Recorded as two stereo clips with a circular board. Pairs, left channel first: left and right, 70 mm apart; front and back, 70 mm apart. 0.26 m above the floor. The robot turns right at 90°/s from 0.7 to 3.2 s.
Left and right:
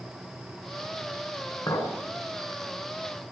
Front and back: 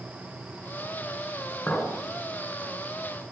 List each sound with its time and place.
1.7 s a clink: 65° left, 2 m; by 1.9 s 90° left, 2 m